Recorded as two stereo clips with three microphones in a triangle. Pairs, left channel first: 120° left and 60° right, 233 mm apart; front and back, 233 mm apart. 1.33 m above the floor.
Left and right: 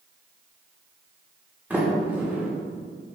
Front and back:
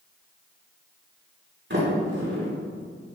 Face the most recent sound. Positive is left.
turn(degrees=-145)